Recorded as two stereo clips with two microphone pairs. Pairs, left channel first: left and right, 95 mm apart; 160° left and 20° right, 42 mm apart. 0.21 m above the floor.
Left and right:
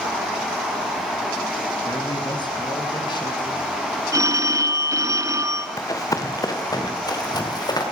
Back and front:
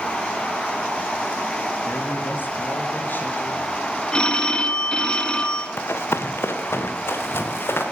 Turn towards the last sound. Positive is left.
turn(degrees=135)